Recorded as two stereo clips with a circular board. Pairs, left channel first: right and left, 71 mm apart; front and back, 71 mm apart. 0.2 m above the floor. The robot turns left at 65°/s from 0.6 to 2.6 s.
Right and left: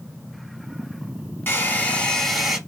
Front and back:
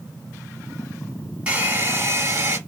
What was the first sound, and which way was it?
A hair dryer, 120° right.